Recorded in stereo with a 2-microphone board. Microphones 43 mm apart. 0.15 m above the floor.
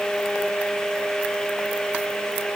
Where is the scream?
No scream in this recording.